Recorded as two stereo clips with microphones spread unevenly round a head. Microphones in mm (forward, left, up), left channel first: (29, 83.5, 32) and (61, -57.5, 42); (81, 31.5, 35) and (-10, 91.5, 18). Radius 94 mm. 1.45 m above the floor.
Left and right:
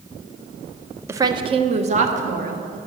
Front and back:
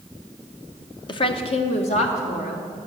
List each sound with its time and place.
1.1 s a woman speaking: 10° right, 0.6 m; by 2.8 s 55° right, 1.6 m